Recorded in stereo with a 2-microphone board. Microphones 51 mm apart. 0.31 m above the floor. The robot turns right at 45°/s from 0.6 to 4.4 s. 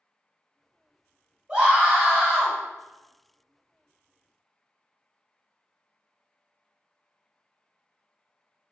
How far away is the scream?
About 1.3 m.